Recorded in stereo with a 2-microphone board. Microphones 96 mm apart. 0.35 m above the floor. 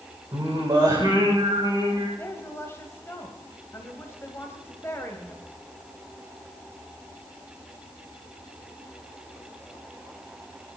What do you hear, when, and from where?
0.3 s singing: 45° right (ahead or behind), 9 m
2.2 s a woman speaking: 25° left (ahead or behind), 2 m